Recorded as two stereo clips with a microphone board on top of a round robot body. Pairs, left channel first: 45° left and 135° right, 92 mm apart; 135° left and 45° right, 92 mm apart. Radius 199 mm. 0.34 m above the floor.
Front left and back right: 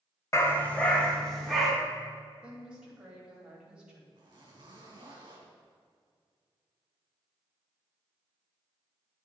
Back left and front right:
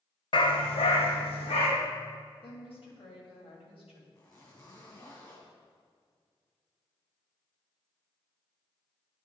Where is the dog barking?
105° left, 0.9 m; by 1.7 s 135° left, 2 m.